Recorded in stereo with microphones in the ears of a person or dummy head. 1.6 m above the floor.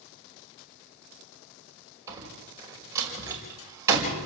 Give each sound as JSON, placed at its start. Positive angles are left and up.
{"t": 2.1, "sound": "a door slam", "side_deg": -15, "distance_m": 5.5}